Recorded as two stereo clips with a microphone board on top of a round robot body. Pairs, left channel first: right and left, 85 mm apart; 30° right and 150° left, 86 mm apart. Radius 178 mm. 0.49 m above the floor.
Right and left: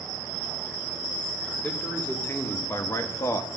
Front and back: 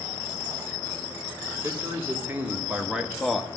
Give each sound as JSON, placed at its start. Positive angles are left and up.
{"t": 1.6, "sound": "a man speaking", "azimuth_deg": -155, "distance_m": 2.5}